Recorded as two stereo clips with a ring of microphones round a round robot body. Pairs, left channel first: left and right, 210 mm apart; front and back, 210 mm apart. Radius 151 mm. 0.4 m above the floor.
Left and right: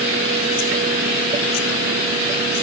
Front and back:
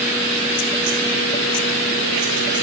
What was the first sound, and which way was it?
Only background noise.